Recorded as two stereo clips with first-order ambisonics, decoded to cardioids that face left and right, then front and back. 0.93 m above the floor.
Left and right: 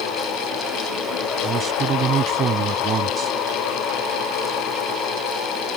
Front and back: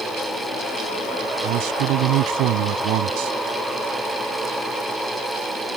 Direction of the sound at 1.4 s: 150° right.